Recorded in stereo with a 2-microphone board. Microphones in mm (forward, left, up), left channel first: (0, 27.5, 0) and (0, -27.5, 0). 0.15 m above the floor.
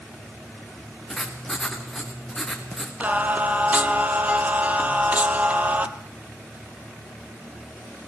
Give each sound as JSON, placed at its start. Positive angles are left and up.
{"t": 1.1, "sound": "writing", "side_deg": 5, "distance_m": 3.5}
{"t": 3.0, "sound": "singing", "side_deg": -25, "distance_m": 1.3}